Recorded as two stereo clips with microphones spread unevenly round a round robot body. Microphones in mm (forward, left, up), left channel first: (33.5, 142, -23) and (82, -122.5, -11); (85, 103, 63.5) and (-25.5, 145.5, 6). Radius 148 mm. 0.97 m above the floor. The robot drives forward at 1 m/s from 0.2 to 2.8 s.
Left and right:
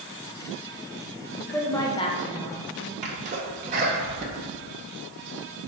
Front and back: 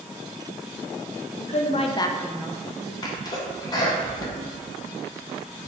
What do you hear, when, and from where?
1.4 s a woman speaking: 15° left, 0.9 m; by 2.9 s 165° left, 0.9 m
3.0 s a sneeze: 105° right, 0.7 m